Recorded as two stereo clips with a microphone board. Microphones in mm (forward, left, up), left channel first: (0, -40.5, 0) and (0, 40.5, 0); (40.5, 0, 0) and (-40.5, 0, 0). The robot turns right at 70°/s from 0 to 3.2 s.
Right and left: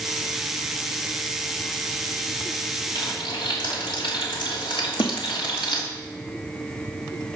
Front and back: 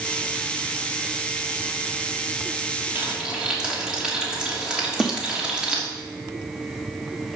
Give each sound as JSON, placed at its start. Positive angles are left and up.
{"t": 3.0, "sound": "frying", "azimuth_deg": -115, "distance_m": 3.0}
{"t": 5.0, "sound": "a snare drum", "azimuth_deg": -85, "distance_m": 1.0}